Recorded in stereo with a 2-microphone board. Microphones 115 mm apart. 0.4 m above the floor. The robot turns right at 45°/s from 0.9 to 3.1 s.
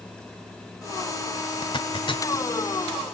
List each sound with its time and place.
1.6 s a zipper: 45° left (ahead or behind), 1.0 m; by 2.5 s 40° left (ahead or behind), 1.0 m